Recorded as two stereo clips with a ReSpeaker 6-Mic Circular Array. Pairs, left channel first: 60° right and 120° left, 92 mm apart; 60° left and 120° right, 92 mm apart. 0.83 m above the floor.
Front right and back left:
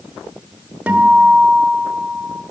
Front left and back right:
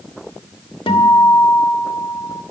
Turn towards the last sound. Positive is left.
turn(degrees=45)